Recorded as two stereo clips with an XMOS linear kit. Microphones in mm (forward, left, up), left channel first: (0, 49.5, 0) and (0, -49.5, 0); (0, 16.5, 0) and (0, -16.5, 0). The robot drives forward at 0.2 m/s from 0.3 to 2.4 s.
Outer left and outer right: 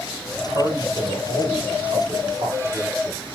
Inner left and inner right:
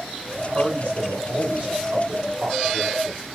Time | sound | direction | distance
0.3 | a man speaking | 55° right (ahead or behind) | 2.5 m